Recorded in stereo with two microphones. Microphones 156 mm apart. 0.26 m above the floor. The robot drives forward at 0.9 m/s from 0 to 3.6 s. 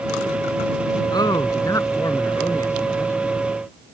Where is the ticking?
I don't hear ticking.